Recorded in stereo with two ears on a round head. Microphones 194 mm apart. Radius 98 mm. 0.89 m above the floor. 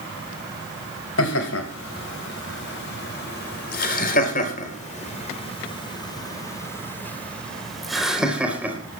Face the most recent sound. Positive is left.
turn(degrees=-10)  # may be behind; listen again after turning